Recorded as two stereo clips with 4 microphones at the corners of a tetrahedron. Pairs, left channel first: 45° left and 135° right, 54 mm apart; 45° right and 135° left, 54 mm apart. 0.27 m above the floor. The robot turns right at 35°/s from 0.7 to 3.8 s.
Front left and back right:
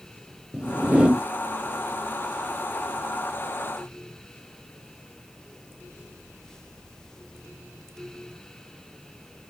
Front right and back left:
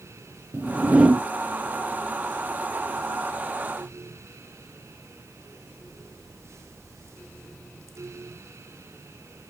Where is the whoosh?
165° left, 0.9 m; by 1.2 s 175° right, 0.9 m.